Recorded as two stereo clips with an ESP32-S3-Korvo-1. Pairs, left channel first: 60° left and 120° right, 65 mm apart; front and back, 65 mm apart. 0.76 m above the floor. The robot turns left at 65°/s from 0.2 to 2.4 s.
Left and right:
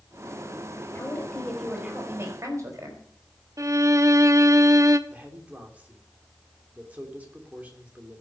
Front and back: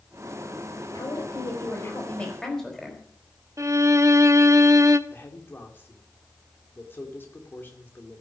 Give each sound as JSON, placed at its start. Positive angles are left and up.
{"t": 0.9, "sound": "a woman speaking", "azimuth_deg": 15, "distance_m": 4.5}
{"t": 3.6, "sound": "a violin", "azimuth_deg": -150, "distance_m": 0.7}
{"t": 5.1, "sound": "a man speaking", "azimuth_deg": -55, "distance_m": 2.5}